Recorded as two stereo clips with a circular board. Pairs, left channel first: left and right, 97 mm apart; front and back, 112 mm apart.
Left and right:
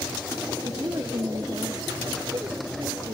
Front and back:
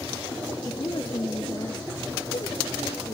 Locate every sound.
0.7 s a woman speaking: 45° right